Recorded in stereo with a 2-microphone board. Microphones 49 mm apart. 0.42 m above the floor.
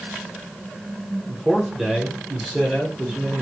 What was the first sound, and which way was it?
A man speaking, centre (ahead or behind).